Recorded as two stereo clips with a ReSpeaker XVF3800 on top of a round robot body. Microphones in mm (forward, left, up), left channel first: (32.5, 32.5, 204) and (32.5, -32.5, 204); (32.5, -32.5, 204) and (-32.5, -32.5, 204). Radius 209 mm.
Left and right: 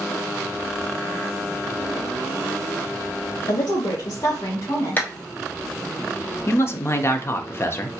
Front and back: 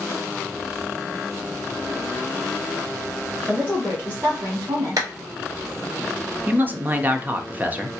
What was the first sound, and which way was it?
A woman speaking, 100° left.